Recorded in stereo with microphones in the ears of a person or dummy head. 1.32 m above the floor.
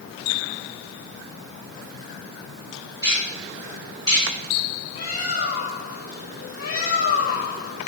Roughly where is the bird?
Left.